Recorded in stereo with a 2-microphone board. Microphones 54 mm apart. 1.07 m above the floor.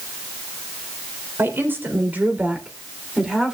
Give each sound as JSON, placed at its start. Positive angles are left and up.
{"t": 1.4, "sound": "a woman speaking", "side_deg": -45, "distance_m": 3.5}